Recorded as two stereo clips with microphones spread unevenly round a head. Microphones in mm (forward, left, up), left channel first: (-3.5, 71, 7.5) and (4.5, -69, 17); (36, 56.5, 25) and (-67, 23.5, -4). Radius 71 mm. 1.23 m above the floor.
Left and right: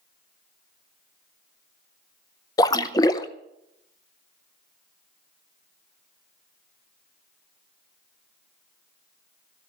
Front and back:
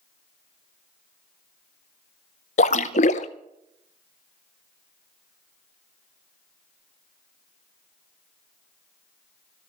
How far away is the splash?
About 0.6 m.